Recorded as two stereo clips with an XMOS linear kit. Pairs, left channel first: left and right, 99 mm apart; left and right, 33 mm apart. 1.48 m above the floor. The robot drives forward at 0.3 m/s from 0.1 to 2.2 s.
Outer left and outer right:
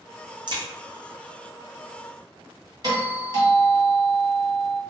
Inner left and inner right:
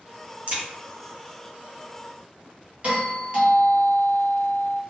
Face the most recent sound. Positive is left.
turn(degrees=-40)  # may be behind; listen again after turning